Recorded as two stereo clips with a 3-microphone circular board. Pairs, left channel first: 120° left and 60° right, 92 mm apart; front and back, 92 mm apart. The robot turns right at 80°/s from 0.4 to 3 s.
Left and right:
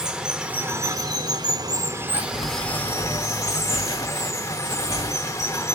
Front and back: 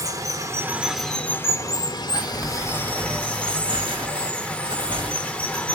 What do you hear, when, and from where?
0.0 s running water: 135° right, 0.8 m; by 5.8 s 70° left, 0.8 m
2.1 s crumpling: 95° left, 2 m; by 5.7 s 165° left, 2 m